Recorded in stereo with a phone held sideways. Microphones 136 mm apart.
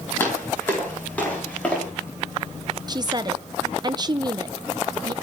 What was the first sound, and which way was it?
Footsteps, 15° left (ahead or behind).